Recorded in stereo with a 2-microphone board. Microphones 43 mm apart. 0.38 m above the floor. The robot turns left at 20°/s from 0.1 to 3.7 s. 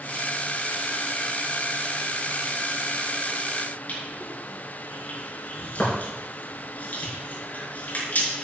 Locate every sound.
3.9 s crushing: 40° left (ahead or behind), 5 m